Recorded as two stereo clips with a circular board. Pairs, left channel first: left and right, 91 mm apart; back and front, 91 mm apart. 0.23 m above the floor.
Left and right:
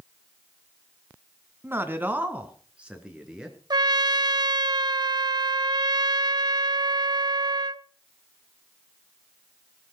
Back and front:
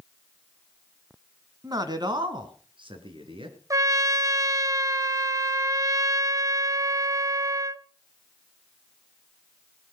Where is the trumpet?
50° right, 0.5 m.